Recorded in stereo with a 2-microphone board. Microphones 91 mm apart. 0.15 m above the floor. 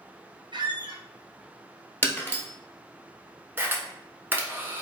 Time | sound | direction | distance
0.5 | a squeak | 65° right (ahead or behind) | 0.7 m
2.0 | breaking glass | 20° left (ahead or behind) | 1.1 m
3.6 | a camera shutter | 25° right (ahead or behind) | 0.9 m